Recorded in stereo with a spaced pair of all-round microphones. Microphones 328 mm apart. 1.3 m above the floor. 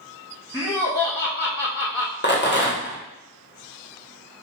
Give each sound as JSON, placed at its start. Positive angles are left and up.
{"t": 0.5, "sound": "laughter", "side_deg": 10, "distance_m": 1.1}
{"t": 2.2, "sound": "a rattle", "side_deg": 35, "distance_m": 0.9}